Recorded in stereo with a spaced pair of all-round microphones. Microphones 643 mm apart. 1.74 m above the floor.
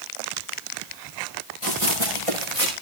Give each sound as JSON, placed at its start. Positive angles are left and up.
{"t": 1.6, "sound": "running footsteps", "side_deg": -50, "distance_m": 9.5}